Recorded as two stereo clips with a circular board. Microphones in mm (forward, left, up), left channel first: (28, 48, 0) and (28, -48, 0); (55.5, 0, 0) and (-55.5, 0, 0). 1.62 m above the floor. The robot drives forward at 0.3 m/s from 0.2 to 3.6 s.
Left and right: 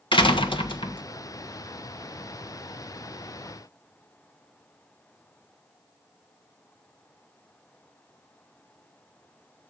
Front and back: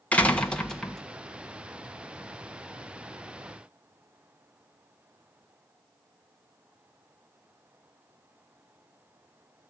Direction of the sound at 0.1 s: 75° left.